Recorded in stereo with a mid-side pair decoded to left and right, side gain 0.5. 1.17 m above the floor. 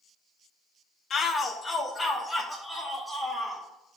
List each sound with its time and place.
1.1 s a shout: 50° left, 0.7 m; by 3.6 s 10° left, 2 m